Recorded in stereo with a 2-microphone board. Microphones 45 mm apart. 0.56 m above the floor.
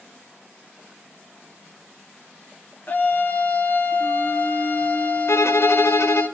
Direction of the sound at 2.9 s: 35° left (ahead or behind).